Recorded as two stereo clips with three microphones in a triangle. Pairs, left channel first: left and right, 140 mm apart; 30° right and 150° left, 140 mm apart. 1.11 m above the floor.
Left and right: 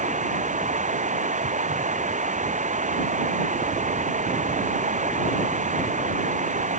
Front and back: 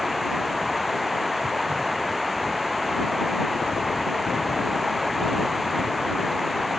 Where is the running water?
120° right.